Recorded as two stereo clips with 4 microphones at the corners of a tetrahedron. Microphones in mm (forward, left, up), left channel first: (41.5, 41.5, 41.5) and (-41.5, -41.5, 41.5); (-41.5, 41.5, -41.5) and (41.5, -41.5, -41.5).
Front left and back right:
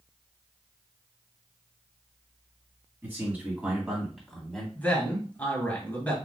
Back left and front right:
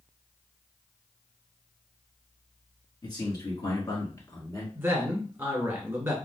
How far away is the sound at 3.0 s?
About 1.8 m.